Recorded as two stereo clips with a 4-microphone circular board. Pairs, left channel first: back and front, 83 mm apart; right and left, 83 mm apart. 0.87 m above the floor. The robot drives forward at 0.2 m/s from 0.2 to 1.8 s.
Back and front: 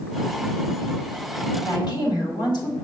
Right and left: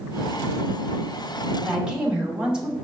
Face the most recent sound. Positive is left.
turn(degrees=170)